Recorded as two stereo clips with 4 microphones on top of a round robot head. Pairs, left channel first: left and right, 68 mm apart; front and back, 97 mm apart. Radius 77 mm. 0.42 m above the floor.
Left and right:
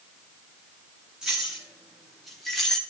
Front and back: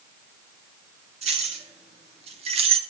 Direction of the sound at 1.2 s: 175° right.